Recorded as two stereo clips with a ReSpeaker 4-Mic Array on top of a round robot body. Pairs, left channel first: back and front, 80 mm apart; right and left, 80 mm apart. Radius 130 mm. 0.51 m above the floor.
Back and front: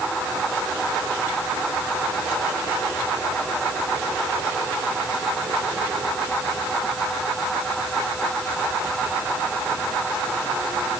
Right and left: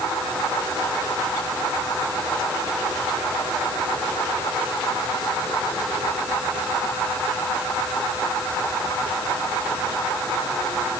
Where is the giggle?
I don't hear a giggle.